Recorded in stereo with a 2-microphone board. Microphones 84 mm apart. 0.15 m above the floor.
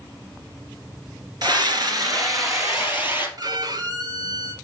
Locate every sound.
1.4 s a scream: 55° right (ahead or behind), 2.0 m; by 3.3 s 30° right (ahead or behind), 3.5 m
3.4 s a violin: 55° right (ahead or behind), 0.7 m